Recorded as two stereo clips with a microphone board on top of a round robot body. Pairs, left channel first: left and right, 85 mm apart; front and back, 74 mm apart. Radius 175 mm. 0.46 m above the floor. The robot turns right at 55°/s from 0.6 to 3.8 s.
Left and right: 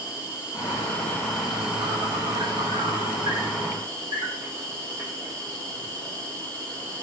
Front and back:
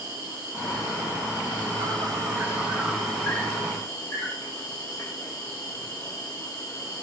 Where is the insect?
135° left, 5.5 m; by 7.0 s 50° right, 5.5 m.